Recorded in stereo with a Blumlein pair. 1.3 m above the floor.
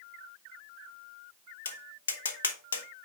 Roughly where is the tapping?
Left.